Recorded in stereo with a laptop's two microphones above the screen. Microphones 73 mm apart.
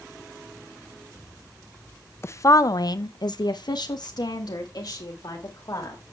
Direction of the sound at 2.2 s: 35° left (ahead or behind).